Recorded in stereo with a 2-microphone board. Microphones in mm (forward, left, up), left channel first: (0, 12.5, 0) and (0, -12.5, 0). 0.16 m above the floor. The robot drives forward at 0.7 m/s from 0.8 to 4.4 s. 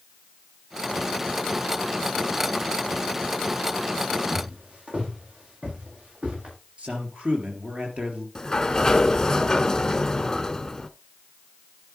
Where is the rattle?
No rattle in this recording.